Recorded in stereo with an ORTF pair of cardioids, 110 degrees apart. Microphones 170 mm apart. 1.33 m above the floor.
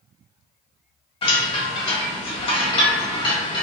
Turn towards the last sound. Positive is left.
turn(degrees=30)